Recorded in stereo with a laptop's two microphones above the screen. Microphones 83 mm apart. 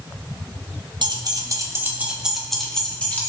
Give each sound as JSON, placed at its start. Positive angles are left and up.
{"t": 1.0, "sound": "keys jangling", "side_deg": -65, "distance_m": 0.8}